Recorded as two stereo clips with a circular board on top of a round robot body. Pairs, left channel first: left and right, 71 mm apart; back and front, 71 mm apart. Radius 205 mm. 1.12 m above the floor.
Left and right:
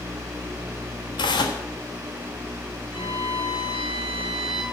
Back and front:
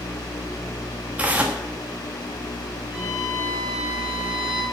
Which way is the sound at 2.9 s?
80° left.